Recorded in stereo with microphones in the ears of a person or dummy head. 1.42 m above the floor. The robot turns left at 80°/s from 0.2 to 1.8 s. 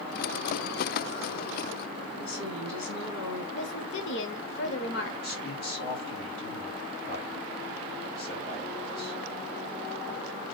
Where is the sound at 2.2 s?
75° left (ahead or behind), 1.6 m.